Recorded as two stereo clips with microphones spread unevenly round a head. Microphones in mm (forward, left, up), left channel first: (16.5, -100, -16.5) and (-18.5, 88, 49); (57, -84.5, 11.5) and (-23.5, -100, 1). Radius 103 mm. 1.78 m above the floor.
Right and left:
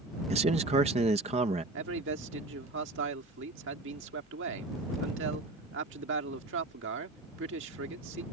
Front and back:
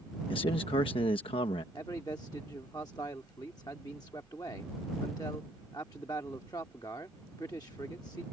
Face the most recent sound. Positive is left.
turn(degrees=80)